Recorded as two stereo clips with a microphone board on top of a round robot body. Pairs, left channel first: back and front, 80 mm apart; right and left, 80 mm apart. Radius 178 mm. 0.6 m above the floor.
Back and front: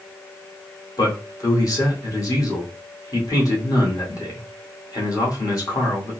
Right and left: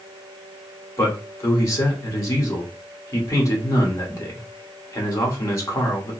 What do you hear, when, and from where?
1.0 s a man speaking: 140° right, 2.0 m